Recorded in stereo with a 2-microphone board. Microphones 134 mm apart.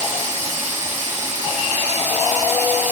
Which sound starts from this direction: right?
Running water, at 0.0 s.